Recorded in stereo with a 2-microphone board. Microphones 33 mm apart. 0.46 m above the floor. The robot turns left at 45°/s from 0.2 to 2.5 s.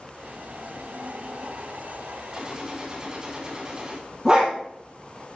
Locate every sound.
2.3 s a gunshot: 25° right (ahead or behind), 2.5 m; by 4.0 s 30° right (ahead or behind), 2.5 m
4.2 s a dog barking: 25° right (ahead or behind), 4.5 m